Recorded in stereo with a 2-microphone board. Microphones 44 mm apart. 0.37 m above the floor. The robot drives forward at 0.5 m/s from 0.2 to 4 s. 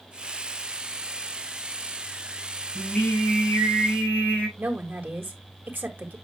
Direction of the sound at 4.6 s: 45° right (ahead or behind).